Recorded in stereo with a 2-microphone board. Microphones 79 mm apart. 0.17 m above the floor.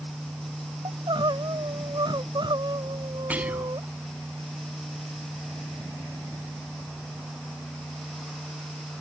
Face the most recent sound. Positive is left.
turn(degrees=-20)  # may be behind; listen again after turning